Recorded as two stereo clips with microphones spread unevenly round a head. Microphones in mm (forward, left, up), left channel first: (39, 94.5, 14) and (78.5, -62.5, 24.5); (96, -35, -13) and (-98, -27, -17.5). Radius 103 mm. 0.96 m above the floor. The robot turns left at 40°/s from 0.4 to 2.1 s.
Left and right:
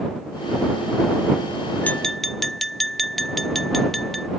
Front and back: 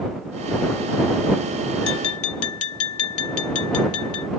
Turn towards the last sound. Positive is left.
turn(degrees=15)